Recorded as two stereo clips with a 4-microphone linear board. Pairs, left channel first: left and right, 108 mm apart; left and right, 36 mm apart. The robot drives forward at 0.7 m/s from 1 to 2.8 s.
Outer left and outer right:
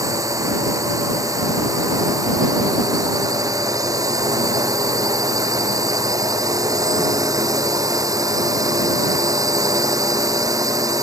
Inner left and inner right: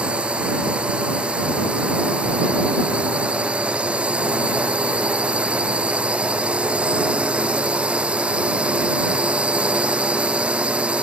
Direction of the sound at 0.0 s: 30° right (ahead or behind).